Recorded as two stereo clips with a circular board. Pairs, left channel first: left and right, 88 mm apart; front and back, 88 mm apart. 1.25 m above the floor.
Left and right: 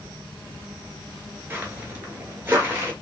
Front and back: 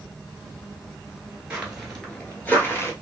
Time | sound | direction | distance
1.5 | footsteps | 120° right | 1.3 m